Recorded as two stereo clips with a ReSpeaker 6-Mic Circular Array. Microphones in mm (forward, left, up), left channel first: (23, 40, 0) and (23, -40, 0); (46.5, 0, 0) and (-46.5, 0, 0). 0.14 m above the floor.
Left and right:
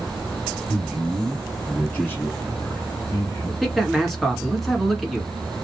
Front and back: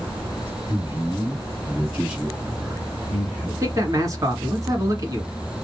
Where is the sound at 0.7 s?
165° left, 2.0 m; by 3.5 s 80° left, 2 m.